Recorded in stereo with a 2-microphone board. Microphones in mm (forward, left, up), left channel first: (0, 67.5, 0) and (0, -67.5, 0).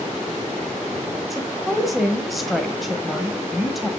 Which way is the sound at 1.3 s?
Centre (ahead or behind).